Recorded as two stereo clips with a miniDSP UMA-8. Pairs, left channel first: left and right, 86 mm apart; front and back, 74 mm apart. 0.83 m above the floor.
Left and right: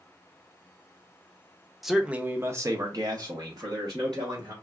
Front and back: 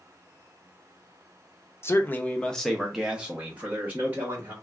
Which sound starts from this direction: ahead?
A man speaking, at 1.8 s.